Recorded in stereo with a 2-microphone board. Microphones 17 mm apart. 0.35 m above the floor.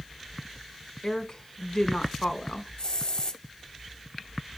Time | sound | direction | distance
1.0 | a woman speaking | 35° left (ahead or behind) | 1.0 m
2.8 | a hiss | 45° left (ahead or behind) | 0.7 m